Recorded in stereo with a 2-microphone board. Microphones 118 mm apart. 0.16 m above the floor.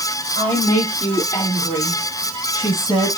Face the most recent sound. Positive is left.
turn(degrees=45)  # may be behind; listen again after turning